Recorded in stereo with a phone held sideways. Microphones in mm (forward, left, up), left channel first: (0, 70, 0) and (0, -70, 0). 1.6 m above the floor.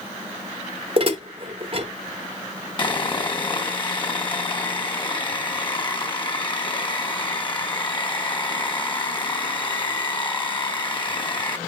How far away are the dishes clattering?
About 1.2 m.